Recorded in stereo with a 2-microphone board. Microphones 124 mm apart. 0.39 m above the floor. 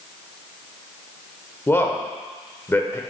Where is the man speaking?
20° left (ahead or behind), 0.9 m.